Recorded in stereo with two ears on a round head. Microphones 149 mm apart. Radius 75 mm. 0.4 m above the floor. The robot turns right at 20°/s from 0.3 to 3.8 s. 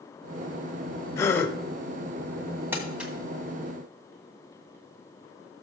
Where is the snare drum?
I don't hear a snare drum.